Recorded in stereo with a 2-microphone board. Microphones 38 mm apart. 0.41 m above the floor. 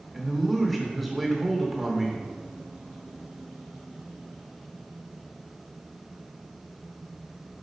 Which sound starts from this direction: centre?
A man speaking, at 0.1 s.